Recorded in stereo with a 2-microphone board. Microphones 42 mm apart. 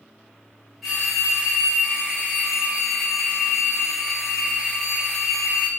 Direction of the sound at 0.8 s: Centre (ahead or behind).